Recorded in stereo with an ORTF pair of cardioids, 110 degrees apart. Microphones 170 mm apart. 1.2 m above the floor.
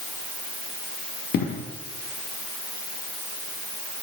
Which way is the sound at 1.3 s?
60° left.